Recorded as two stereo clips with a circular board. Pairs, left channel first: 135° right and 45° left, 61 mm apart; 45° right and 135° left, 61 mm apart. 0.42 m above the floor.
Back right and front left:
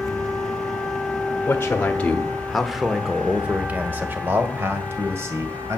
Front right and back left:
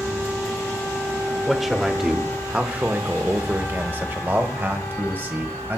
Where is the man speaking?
135° right, 1.1 m; by 5.8 s 80° left, 2 m.